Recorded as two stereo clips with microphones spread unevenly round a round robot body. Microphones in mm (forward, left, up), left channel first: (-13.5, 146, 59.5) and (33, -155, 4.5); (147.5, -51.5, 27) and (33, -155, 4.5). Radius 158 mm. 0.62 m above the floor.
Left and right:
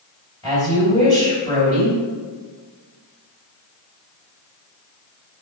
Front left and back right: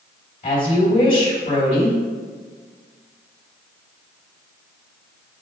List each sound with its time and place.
0.4 s a woman speaking: 20° left, 2.5 m